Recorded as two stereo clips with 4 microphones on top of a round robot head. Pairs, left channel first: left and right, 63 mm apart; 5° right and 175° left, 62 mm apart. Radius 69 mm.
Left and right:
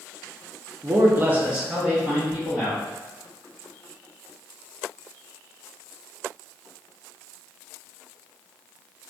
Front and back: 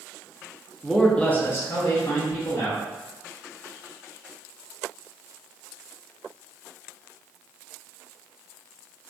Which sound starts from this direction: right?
A man speaking, at 0.8 s.